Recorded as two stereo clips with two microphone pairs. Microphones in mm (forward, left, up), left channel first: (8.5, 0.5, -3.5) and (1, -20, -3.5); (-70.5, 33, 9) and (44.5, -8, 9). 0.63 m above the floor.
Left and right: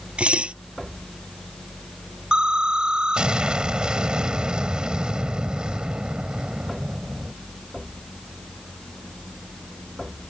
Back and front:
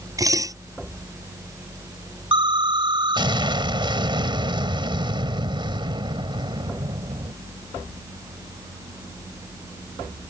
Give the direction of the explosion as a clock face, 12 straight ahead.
2 o'clock.